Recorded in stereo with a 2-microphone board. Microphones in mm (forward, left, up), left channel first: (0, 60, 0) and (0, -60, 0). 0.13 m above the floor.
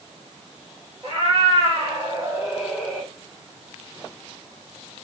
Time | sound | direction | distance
1.0 | a cat meowing | 55° right (ahead or behind) | 1.3 m